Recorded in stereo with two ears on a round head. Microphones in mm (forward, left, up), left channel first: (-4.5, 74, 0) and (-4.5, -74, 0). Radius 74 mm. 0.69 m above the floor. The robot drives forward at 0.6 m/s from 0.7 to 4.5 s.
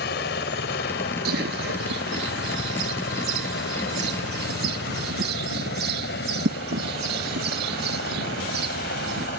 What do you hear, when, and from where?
0.0 s a helicopter: 65° left (ahead or behind)
1.2 s a bird: 65° right (ahead or behind); by 9.3 s 75° right (ahead or behind)